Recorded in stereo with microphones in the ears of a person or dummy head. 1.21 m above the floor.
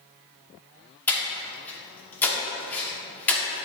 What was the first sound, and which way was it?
Breathing, 5° left (ahead or behind).